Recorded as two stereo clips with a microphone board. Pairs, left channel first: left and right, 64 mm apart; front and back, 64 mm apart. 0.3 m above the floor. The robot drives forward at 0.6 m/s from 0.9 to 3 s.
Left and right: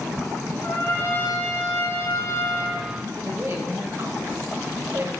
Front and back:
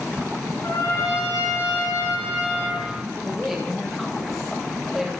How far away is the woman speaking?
About 1.7 m.